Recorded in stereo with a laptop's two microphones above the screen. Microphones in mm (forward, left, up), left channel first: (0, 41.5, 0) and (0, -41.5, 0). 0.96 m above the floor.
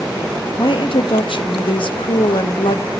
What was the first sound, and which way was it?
A woman speaking, 75° left (ahead or behind).